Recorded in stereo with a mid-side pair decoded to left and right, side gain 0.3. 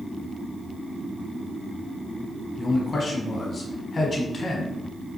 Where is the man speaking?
45° left, 1.1 m.